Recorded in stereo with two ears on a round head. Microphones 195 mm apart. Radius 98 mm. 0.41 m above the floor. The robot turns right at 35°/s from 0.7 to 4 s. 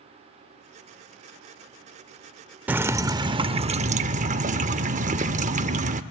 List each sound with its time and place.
2.7 s dripping: 170° right, 0.6 m; by 6.0 s 120° right, 0.6 m